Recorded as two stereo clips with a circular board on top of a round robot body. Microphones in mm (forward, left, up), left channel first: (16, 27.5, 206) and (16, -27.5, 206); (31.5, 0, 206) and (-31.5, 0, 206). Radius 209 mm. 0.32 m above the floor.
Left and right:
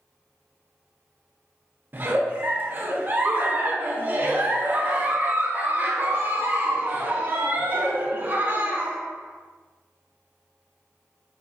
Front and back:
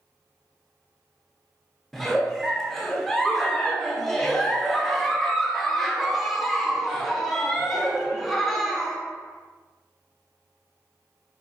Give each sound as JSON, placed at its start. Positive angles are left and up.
{"t": 1.9, "sound": "a giggle", "azimuth_deg": -85, "distance_m": 0.8}